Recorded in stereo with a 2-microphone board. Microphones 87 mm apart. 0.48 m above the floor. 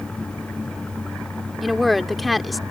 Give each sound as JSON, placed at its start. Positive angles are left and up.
{"t": 1.6, "sound": "a woman speaking", "side_deg": 0}